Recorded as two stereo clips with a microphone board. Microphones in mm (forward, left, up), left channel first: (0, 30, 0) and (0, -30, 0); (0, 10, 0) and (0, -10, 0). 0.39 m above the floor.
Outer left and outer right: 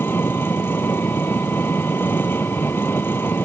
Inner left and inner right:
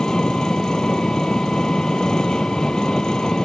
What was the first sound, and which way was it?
An engine running, 35° left (ahead or behind).